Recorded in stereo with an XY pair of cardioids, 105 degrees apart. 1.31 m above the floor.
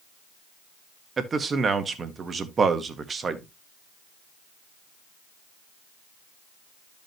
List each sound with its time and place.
1.2 s a man speaking: 35° right, 1.7 m